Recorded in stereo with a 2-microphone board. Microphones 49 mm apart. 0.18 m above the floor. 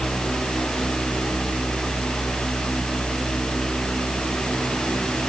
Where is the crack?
No crack in this recording.